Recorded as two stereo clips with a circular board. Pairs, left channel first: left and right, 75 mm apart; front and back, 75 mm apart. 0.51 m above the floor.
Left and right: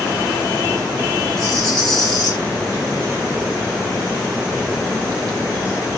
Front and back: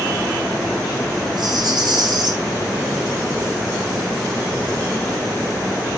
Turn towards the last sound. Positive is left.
turn(degrees=170)